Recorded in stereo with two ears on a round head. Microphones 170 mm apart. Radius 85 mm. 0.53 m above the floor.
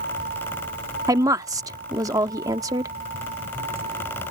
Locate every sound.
0.0 s a vehicle: 40° right (ahead or behind); by 4.3 s 30° right (ahead or behind)
1.1 s a woman speaking: 20° right (ahead or behind)